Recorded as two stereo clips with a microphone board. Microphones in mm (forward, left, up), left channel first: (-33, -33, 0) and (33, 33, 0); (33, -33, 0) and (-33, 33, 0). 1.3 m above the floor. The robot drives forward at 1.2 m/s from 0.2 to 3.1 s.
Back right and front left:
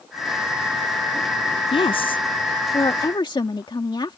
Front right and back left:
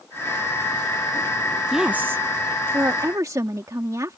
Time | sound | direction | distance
1.7 | a woman speaking | 135° right | ?